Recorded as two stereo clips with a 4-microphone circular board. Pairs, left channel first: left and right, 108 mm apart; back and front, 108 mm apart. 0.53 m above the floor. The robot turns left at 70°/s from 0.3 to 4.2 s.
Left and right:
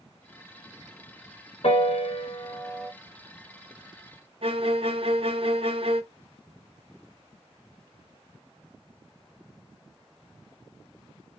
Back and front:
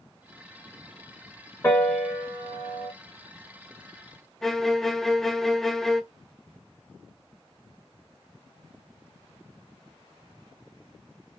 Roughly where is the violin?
Right.